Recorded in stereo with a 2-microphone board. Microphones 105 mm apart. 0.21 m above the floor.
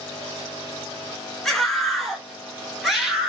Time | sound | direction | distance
1.4 | a scream | centre (ahead or behind) | 2 m